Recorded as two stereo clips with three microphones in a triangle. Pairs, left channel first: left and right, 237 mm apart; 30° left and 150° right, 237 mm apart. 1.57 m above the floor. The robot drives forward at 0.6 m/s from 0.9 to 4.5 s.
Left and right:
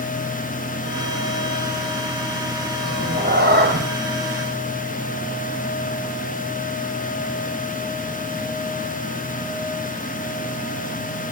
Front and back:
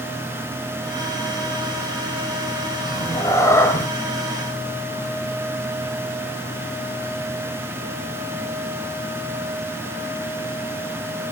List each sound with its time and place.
2.9 s a cat meowing: 45° right, 4 m; by 3.9 s 50° right, 3.5 m